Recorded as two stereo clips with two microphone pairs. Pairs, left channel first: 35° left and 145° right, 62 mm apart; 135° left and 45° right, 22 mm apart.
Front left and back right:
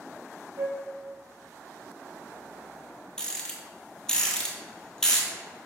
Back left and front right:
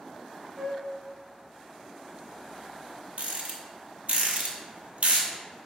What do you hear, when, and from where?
0.6 s a flute: 110° right, 0.6 m
3.2 s a rattle: 45° right, 0.9 m